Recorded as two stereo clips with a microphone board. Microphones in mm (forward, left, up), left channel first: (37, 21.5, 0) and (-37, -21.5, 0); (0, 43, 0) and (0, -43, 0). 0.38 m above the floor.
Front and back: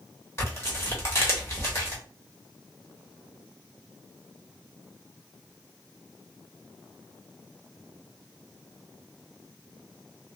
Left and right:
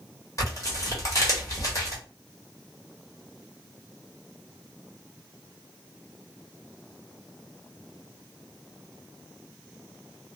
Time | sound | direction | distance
0.4 | tearing paper | 70° left | 1.2 m